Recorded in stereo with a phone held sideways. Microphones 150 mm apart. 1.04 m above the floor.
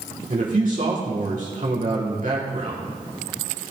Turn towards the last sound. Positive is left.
turn(degrees=-60)  # may be behind; listen again after turning